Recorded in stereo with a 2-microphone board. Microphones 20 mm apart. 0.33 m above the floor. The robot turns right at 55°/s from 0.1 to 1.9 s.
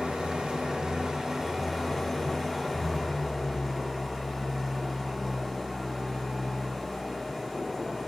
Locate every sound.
0.0 s an engine running: 105° right, 1.5 m; by 8.1 s 5° right, 1.5 m